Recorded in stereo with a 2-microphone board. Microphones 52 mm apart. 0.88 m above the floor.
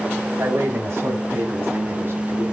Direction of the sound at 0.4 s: 55° right (ahead or behind).